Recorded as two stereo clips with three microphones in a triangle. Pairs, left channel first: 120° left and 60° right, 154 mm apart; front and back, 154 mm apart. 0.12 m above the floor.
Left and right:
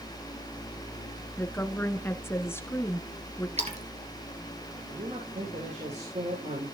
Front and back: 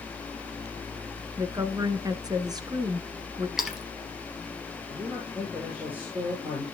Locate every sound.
1.4 s a woman speaking: 175° left, 1.2 m
3.6 s a splash: 95° right, 2.5 m
4.9 s a man speaking: 100° right, 6.5 m